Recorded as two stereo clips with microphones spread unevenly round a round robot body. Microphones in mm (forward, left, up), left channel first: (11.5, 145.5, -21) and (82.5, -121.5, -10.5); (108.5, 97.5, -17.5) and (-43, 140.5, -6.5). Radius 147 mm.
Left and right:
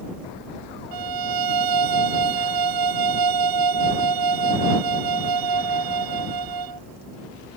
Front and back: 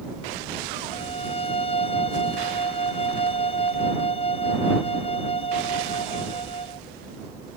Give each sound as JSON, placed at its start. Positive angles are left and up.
{"t": 0.9, "sound": "a violin", "azimuth_deg": -90}